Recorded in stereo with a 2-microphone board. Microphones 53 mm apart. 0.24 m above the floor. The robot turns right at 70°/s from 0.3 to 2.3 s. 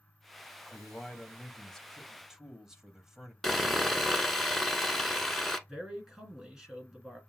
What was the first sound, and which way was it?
A man speaking, 20° left (ahead or behind).